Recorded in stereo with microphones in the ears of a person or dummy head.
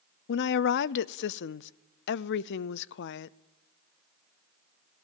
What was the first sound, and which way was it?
A woman speaking, 60° left (ahead or behind).